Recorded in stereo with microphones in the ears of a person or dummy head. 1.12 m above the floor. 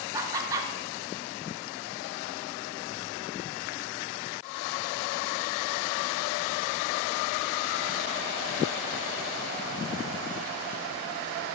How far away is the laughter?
About 0.7 m.